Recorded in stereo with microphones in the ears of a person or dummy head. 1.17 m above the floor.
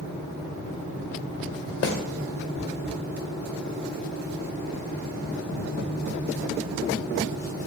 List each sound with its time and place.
1.8 s a snare drum: 50° left (ahead or behind), 1.2 m